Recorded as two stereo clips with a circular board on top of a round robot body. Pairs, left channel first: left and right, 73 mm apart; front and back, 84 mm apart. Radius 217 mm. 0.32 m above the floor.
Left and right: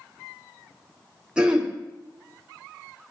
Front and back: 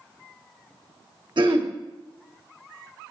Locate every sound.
1.4 s throat clearing: 170° right, 2 m